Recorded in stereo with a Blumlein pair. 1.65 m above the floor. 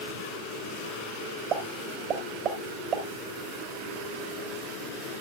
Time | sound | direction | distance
1.5 | a pop | 35° right | 4 m